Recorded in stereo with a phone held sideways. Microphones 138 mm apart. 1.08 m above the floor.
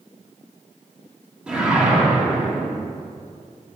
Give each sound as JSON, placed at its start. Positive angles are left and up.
{"t": 1.5, "sound": "a whoosh", "side_deg": -10, "distance_m": 1.7}